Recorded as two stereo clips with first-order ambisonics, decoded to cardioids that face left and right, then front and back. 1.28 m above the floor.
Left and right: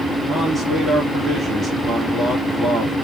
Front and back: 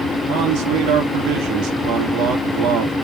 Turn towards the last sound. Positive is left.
turn(degrees=-165)